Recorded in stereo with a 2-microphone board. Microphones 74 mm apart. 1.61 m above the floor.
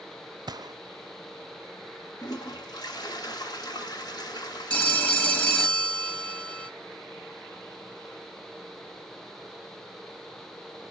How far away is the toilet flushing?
About 3 m.